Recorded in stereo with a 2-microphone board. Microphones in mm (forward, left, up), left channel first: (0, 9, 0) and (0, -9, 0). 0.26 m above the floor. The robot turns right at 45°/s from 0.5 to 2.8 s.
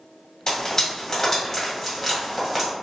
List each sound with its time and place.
0.5 s frying: 30° left (ahead or behind), 1.7 m; by 2.7 s 10° right (ahead or behind), 1.7 m